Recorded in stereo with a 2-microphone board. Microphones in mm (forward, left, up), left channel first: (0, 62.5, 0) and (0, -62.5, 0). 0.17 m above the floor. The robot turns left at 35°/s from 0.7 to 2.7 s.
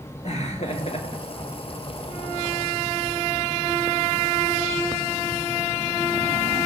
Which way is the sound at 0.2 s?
65° left (ahead or behind).